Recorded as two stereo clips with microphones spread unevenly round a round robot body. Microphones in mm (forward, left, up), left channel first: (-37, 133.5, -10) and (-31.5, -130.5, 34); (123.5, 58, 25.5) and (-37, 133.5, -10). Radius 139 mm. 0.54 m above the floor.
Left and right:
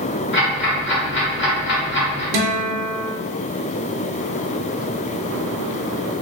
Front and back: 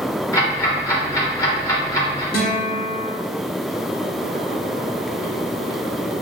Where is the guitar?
75° right, 0.6 m.